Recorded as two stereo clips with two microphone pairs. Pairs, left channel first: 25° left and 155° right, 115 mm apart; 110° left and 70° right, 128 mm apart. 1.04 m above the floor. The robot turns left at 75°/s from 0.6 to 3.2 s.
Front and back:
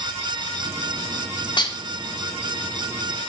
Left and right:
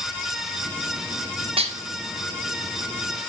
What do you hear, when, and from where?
1.6 s dishes clattering: 25° right, 1.0 m; by 3.3 s 150° right, 1.0 m